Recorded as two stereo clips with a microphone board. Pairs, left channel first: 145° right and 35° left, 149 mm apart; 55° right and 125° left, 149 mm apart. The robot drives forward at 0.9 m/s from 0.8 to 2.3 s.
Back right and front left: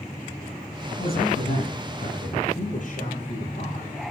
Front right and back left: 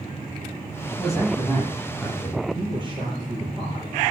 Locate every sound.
0.9 s a man speaking: 150° right, 8 m
2.5 s a man speaking: straight behind, 8 m